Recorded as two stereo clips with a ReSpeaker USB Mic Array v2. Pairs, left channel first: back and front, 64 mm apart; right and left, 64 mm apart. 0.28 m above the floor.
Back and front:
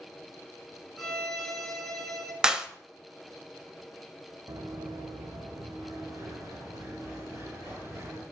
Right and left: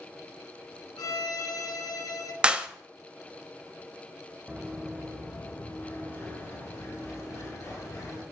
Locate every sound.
1.0 s a violin: 95° right, 1.5 m
2.4 s a clap: 55° left, 0.7 m
4.5 s running footsteps: straight ahead, 1.2 m; by 8.2 s 45° right, 4.5 m